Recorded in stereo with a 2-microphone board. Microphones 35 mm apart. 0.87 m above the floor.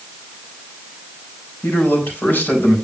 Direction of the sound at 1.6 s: 85° left.